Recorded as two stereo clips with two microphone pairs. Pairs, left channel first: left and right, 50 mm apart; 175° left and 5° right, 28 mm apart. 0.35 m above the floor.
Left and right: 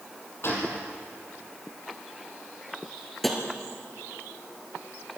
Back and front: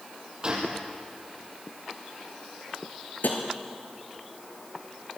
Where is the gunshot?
50° left, 4.5 m.